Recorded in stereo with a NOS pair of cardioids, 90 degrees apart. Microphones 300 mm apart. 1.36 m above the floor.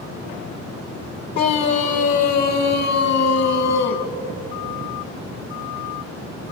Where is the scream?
60° left, 1.8 m; by 4.1 s 55° left, 4 m.